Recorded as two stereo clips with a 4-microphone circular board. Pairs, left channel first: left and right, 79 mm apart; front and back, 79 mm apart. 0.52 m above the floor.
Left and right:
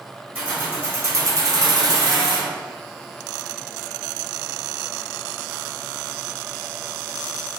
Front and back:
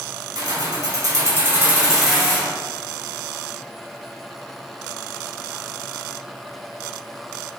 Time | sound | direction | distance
0.3 | keys jangling | 160° right | 1.4 m